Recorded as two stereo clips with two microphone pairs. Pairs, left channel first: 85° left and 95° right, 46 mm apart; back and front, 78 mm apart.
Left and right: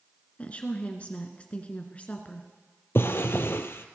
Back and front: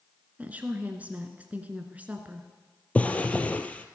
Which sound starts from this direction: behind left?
A drawer, at 3.0 s.